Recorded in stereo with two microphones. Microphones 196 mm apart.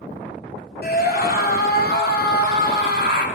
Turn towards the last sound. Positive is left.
turn(degrees=65)  # may be behind; listen again after turning